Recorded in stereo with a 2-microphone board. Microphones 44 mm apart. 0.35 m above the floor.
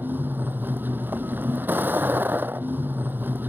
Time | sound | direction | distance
0.0 | a vehicle | 45° right (ahead or behind) | ?